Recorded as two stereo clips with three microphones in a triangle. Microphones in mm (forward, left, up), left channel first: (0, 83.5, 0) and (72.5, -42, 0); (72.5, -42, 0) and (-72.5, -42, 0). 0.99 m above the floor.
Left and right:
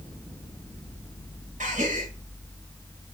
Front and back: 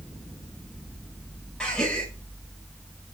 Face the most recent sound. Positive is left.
turn(degrees=-85)